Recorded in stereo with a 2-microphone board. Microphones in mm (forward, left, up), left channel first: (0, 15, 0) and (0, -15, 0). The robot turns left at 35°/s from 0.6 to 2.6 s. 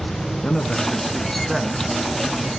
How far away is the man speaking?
About 1.7 m.